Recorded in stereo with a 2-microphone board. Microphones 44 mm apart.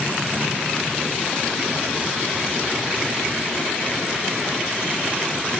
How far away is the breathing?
No breathing in this recording.